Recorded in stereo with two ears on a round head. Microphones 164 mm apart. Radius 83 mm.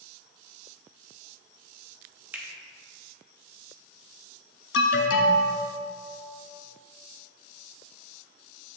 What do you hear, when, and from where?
2.3 s a finger snap: 10° right (ahead or behind), 1.1 m
4.7 s an alarm: 70° left (ahead or behind), 1.0 m